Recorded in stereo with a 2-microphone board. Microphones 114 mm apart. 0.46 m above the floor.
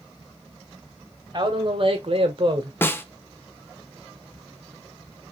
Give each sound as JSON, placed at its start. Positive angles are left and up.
{"t": 1.3, "sound": "a man speaking", "side_deg": -40, "distance_m": 1.6}
{"t": 2.8, "sound": "a snare drum", "side_deg": 20, "distance_m": 0.7}